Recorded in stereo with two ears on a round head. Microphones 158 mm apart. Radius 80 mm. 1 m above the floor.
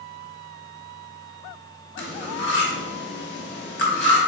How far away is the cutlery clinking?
About 1.0 m.